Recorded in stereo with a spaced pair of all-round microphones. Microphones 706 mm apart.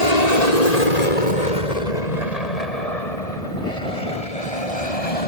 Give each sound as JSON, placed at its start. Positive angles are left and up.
{"t": 0.0, "sound": "an aircraft", "side_deg": 65}